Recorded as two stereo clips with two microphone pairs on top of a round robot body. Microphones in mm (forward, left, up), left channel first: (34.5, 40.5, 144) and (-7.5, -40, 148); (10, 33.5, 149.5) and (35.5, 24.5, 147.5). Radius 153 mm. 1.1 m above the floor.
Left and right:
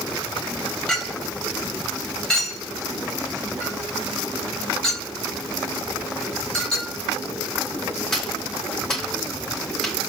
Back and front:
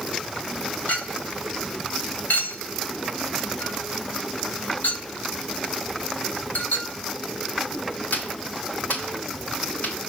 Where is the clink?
145° left, 4 m.